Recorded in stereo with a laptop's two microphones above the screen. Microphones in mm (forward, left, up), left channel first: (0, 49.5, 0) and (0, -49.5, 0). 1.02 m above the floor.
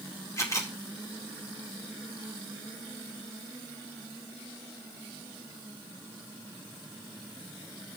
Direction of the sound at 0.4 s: 30° left (ahead or behind).